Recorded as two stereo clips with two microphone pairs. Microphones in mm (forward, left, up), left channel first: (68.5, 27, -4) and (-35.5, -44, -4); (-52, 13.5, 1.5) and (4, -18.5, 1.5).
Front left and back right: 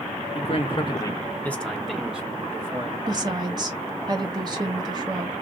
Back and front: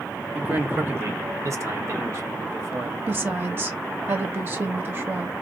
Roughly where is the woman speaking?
Right.